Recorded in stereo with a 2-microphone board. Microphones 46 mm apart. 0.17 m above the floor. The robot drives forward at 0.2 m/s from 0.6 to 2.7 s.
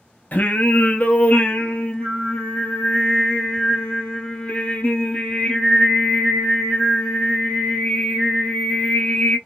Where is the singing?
40° left (ahead or behind), 0.6 m; by 9.4 s 25° left (ahead or behind), 1.0 m.